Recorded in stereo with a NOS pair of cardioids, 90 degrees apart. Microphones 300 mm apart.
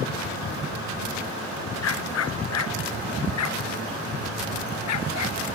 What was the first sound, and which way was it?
A dog barking, 55° left.